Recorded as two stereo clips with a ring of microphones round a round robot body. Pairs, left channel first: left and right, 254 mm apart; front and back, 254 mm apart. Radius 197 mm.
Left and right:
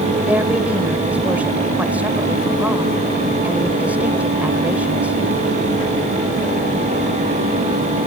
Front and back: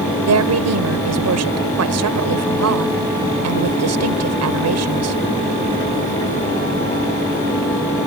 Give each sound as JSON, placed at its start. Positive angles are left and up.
{"t": 0.3, "sound": "a woman speaking", "azimuth_deg": -175}